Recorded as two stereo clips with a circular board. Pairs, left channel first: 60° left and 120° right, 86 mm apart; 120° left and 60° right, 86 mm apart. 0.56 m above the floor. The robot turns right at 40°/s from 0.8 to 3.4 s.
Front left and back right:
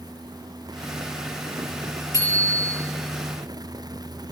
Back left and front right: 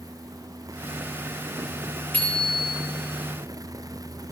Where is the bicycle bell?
165° right, 8 m; by 2.7 s 145° right, 8 m.